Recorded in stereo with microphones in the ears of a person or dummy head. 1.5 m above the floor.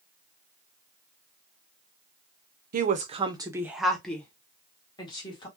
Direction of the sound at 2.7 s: 50° right (ahead or behind).